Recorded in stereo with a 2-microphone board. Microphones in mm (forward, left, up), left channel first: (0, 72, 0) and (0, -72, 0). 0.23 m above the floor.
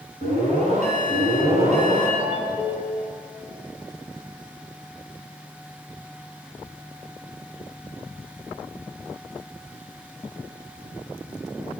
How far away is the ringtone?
About 1.1 m.